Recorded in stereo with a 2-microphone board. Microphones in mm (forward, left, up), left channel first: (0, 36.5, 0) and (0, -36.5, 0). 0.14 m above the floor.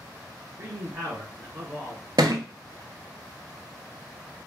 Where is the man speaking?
35° right (ahead or behind), 1.4 m.